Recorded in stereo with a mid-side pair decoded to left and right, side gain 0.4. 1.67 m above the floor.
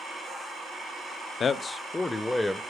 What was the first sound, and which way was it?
A man speaking, 60° left.